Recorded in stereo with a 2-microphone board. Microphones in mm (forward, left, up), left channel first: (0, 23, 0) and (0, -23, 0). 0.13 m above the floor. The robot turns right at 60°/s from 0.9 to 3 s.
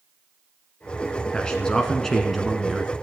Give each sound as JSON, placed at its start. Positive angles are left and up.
{"t": 1.3, "sound": "a man speaking", "side_deg": 20, "distance_m": 1.1}